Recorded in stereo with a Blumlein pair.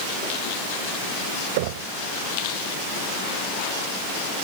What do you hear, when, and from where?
1.6 s knocking: 50° right